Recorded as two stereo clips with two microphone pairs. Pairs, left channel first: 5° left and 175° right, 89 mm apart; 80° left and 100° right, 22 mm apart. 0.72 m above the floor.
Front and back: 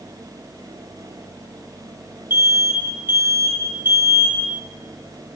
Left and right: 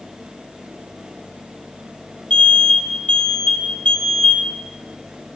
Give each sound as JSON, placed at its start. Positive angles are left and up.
{"t": 2.3, "sound": "an alarm", "azimuth_deg": 120, "distance_m": 4.5}